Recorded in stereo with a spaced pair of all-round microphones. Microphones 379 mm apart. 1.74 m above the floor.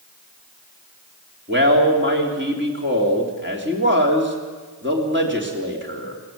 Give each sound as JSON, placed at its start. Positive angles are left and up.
{"t": 1.5, "sound": "a man speaking", "side_deg": -30, "distance_m": 3.5}